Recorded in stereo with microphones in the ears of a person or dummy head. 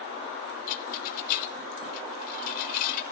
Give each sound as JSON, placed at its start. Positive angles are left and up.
{"t": 0.7, "sound": "a rattle", "side_deg": 55, "distance_m": 0.7}